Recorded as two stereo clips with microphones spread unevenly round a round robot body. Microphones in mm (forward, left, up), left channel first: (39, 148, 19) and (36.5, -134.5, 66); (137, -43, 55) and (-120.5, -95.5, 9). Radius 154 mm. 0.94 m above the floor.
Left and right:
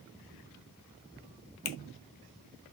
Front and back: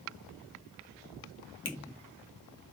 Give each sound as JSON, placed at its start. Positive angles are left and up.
{"t": 1.6, "sound": "a finger snap", "azimuth_deg": 60, "distance_m": 0.8}